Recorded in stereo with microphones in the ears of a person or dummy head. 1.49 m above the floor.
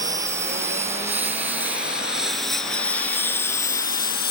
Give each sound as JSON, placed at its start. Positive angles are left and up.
{"t": 0.0, "sound": "a lawn mower", "side_deg": -15}